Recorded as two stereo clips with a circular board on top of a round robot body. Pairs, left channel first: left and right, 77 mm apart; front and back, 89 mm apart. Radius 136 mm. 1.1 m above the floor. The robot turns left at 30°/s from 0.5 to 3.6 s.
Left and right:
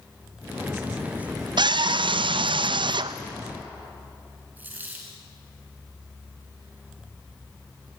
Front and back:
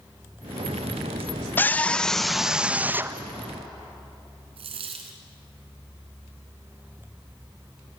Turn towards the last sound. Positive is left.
turn(degrees=-160)